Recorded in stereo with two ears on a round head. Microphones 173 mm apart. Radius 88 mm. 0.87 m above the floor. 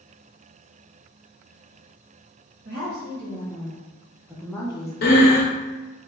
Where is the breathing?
50° left (ahead or behind), 0.7 m.